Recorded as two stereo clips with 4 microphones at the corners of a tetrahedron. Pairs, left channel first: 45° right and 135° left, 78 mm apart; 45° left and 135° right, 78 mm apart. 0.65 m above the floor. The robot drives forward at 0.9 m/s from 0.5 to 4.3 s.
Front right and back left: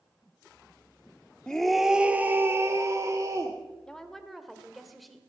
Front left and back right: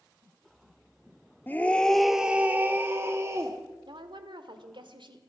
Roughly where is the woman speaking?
Behind right.